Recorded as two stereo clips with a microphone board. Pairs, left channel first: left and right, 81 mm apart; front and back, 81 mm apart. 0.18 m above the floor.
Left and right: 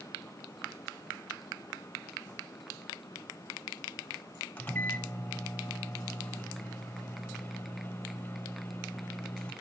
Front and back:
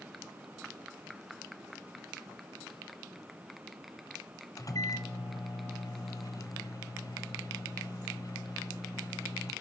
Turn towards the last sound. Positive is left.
turn(degrees=25)